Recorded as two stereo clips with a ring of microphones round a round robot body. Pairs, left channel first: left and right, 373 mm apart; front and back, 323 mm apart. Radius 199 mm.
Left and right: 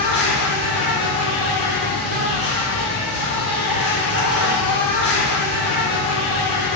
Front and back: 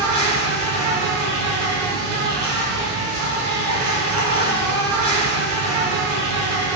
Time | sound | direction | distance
0.0 | an insect | 150° left | 1.4 m